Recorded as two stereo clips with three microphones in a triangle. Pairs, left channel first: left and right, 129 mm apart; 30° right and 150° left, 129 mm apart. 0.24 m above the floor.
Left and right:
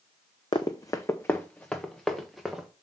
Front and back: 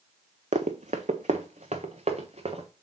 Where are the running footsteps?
140° left, 0.9 m; by 2.7 s 175° right, 1.8 m.